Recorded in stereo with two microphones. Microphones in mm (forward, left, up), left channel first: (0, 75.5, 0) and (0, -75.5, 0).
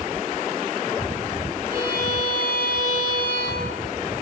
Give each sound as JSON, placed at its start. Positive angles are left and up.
{"t": 1.7, "sound": "a violin", "side_deg": -65, "distance_m": 7.0}